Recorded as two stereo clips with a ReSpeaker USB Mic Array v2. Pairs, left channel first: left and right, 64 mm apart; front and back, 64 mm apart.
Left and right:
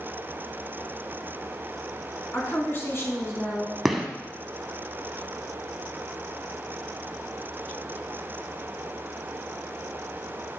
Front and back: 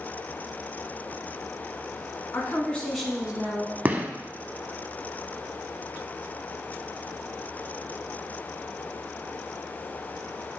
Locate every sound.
2.3 s a woman speaking: 40° left, 1.6 m; by 3.8 s 125° left, 1.8 m
3.9 s a gunshot: 175° right, 0.8 m